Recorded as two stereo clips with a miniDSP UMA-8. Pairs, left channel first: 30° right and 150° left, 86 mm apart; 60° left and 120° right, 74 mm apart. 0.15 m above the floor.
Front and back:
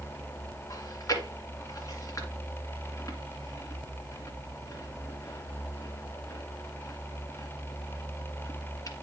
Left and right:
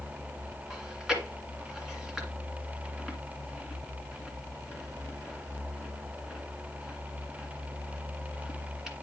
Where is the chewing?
40° right, 1.9 m.